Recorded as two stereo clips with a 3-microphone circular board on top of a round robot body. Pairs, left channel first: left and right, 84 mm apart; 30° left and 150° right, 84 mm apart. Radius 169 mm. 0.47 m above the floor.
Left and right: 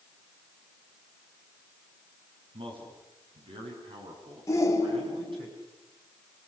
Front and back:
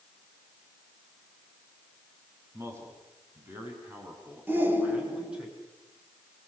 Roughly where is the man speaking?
Right.